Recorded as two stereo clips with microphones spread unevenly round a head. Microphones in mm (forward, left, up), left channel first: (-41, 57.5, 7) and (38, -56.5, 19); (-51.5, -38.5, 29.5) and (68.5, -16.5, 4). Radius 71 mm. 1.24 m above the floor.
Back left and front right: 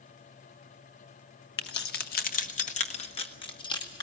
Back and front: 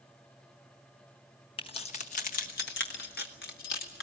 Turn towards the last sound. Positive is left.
turn(degrees=-170)